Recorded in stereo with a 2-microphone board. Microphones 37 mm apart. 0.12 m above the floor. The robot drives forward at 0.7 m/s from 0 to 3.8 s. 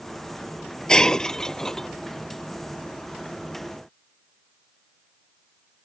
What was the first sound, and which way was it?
Breaking glass, 20° left (ahead or behind).